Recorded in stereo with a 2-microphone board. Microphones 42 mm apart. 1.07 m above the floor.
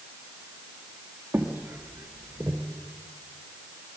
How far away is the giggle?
No giggle in this recording.